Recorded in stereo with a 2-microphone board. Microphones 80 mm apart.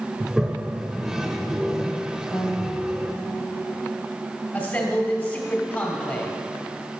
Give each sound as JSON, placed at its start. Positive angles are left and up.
{"t": 0.2, "sound": "a toilet flushing", "side_deg": -5, "distance_m": 0.8}
{"t": 2.3, "sound": "a piano", "side_deg": 40, "distance_m": 2.0}
{"t": 4.5, "sound": "a man speaking", "side_deg": 25, "distance_m": 2.5}